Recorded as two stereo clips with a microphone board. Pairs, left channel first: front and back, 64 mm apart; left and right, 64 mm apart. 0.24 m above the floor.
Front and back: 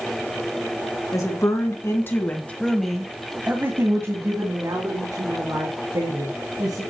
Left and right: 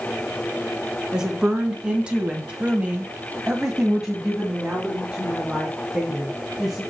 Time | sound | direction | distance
1.1 | a woman speaking | 15° right | 2.5 m